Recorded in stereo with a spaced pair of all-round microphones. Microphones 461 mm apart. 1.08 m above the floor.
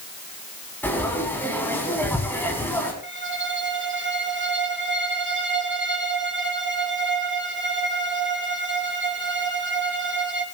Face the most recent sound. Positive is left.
turn(degrees=-25)  # may be behind; listen again after turning